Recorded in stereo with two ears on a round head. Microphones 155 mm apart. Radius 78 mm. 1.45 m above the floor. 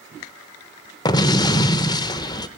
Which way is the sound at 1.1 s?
25° left (ahead or behind).